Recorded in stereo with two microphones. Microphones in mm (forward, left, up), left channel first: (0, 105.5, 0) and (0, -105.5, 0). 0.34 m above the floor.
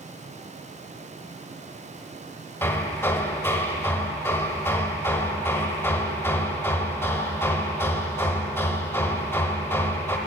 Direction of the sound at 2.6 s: 10° left (ahead or behind).